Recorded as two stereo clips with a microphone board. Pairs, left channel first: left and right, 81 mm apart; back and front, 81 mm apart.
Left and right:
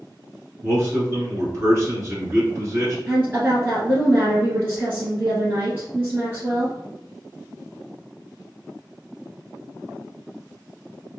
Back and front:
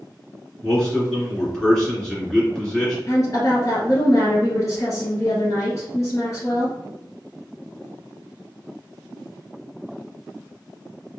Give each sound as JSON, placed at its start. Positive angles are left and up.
{"t": 0.6, "sound": "a man speaking", "azimuth_deg": -105, "distance_m": 1.6}
{"t": 3.1, "sound": "a woman speaking", "azimuth_deg": -150, "distance_m": 1.9}